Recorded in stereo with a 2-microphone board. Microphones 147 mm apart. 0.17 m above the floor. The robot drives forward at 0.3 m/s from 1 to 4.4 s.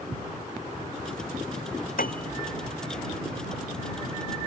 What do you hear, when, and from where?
2.0 s a piano: 70° left (ahead or behind)